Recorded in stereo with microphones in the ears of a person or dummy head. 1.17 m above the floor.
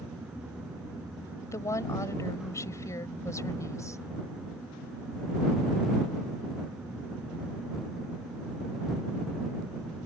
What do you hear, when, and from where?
1.4 s a woman speaking: 15° left (ahead or behind)